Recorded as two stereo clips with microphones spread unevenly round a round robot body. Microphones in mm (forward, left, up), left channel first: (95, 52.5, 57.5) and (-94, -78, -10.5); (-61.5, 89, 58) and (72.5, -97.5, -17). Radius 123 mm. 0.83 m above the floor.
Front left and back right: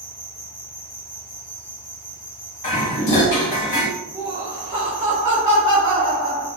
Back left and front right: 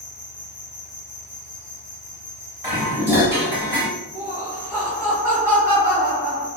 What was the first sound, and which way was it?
An insect, 55° left.